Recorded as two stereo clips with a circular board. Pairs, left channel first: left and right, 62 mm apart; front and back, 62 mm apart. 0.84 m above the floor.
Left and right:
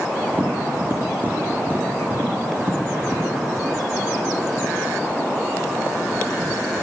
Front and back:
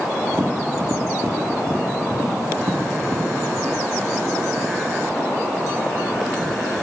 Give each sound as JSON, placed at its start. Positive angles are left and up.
{"t": 0.3, "sound": "tapping", "azimuth_deg": -145, "distance_m": 1.8}